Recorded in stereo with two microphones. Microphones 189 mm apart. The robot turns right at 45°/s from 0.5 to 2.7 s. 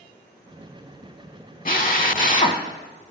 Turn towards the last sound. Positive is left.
turn(degrees=130)